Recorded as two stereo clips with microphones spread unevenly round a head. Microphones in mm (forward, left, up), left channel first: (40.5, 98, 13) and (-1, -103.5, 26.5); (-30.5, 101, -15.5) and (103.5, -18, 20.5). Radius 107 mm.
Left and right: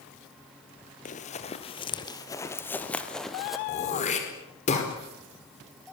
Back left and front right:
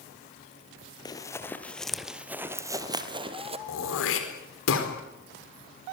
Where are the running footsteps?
70° left, 2.0 m; by 3.6 s 20° right, 2.5 m.